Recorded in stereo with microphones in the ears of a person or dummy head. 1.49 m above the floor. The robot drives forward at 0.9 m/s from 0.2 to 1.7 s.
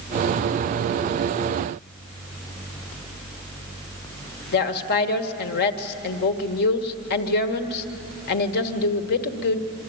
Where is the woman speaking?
60° left (ahead or behind), 1.3 m.